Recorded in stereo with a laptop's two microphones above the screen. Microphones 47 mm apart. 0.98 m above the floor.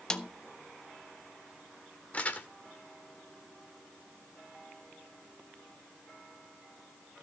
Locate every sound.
0.1 s a snare drum: 15° left (ahead or behind), 0.8 m
2.1 s crumpling: 30° left (ahead or behind), 1.6 m